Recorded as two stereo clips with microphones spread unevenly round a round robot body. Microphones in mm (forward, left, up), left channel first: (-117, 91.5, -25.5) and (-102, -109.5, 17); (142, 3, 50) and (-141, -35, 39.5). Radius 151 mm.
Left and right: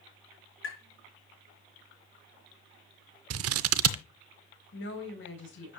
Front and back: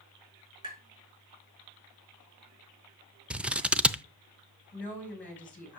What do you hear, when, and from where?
0.6 s tapping: 115° left, 5 m
3.3 s scissors: 85° right, 0.5 m
4.7 s a woman speaking: 95° left, 3 m